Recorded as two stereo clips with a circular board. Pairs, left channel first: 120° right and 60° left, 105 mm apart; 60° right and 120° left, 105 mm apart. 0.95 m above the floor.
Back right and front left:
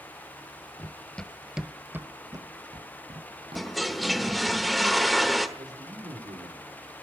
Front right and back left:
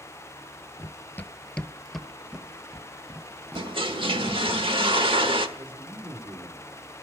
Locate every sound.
0.8 s running footsteps: 85° right, 1.0 m; by 4.4 s 55° left, 2 m
3.5 s a toilet flushing: 150° left, 1.2 m
5.6 s a man speaking: 85° left, 2.5 m